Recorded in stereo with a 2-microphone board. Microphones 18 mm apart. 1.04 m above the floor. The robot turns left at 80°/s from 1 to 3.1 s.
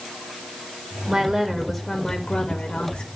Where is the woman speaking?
125° right, 1.9 m; by 3.1 s 75° left, 1.9 m.